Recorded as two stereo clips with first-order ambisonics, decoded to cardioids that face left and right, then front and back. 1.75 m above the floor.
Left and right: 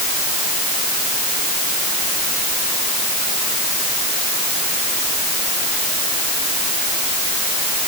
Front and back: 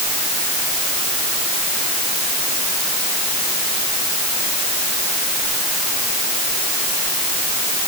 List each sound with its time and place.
Only background noise.